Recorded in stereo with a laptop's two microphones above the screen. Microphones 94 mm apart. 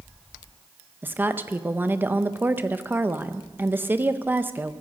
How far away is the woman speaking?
About 0.6 m.